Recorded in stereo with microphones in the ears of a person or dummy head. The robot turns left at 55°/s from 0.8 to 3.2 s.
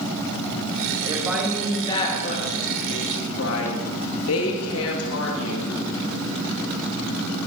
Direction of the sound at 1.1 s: 165° right.